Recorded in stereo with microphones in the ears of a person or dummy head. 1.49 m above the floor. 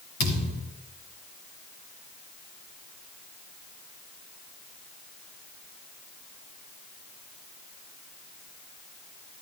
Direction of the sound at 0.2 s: 60° left (ahead or behind).